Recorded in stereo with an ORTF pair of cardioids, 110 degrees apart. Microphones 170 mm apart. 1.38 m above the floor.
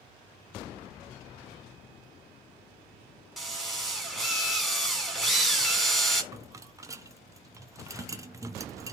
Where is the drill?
Straight ahead, 3 m.